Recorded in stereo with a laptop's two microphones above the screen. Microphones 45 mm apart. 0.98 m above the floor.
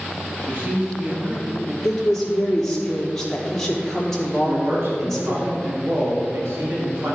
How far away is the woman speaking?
About 3 m.